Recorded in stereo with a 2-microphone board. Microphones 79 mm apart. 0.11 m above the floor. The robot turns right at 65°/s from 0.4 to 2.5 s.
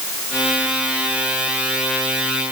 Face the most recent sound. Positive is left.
No sound to turn to.